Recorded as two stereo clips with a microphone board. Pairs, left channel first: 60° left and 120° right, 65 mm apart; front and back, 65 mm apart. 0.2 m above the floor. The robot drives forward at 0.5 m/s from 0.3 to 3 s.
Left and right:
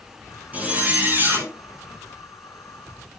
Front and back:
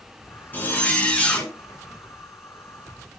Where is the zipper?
60° right, 2.5 m; by 1.5 s 75° right, 2 m.